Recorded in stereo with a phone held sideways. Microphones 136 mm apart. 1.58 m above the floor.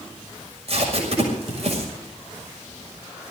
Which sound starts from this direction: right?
Tape being pulled, at 0.7 s.